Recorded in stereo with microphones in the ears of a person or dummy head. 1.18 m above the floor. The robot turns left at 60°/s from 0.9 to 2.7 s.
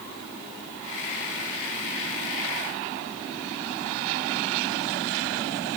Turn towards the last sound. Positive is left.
No sound to turn to.